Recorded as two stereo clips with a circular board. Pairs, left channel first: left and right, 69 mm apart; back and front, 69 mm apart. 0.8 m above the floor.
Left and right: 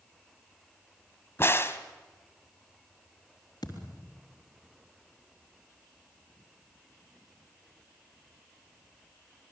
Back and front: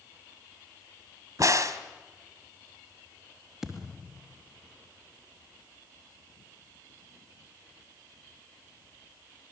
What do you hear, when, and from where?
1.4 s a crack: 35° left, 1.6 m
3.6 s a thud: 90° left, 3.5 m